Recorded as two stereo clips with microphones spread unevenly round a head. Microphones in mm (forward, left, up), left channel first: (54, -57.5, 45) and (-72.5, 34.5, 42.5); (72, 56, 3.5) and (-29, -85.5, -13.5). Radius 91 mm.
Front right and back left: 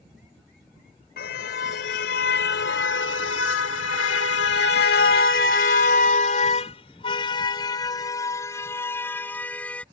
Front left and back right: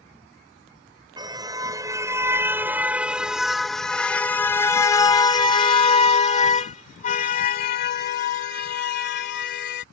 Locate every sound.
1.2 s a car horn: 60° right; by 9.8 s 45° left